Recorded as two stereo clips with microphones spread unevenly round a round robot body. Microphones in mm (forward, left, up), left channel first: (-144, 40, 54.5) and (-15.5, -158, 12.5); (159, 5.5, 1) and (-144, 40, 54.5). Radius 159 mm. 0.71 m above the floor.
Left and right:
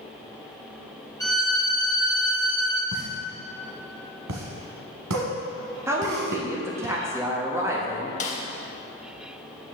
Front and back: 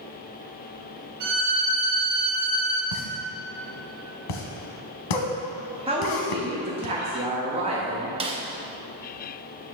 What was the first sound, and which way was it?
A violin, 160° right.